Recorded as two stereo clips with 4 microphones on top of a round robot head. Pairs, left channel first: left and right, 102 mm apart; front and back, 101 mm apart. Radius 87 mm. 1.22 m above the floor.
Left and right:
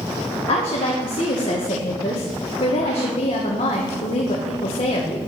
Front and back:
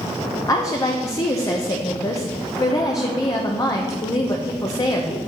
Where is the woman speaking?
55° left, 1.2 m.